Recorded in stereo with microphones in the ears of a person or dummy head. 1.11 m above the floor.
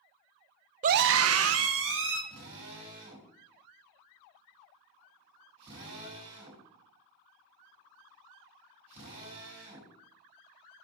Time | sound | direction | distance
0.8 | a scream | 35° right (ahead or behind) | 0.6 m
2.3 | a drill | 30° right (ahead or behind) | 4 m